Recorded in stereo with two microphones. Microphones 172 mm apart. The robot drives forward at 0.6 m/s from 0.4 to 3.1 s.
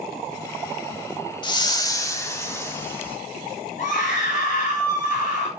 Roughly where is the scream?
Left.